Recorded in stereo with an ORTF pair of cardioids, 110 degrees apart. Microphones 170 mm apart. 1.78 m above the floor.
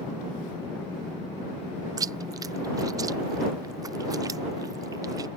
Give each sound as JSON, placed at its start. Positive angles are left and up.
{"t": 2.0, "sound": "chewing", "azimuth_deg": -20}